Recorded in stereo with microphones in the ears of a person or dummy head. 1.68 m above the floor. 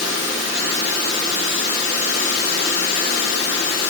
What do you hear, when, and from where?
Only background noise.